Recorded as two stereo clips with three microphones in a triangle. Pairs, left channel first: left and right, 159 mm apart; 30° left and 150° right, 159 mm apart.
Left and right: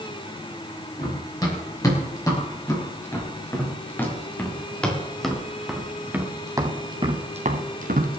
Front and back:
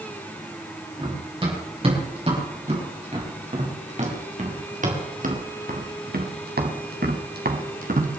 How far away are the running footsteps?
About 9 m.